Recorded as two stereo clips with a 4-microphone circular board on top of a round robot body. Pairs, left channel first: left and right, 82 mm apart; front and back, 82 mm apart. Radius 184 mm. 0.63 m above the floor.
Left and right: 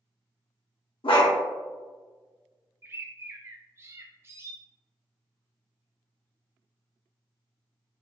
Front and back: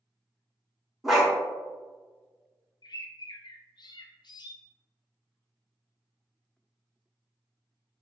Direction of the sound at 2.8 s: 30° right.